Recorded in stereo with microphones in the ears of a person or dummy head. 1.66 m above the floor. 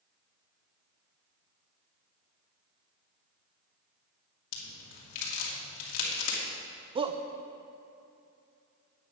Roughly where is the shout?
Right.